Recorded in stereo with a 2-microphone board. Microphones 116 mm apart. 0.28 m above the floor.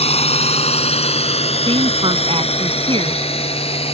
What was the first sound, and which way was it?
A drone, 60° left (ahead or behind).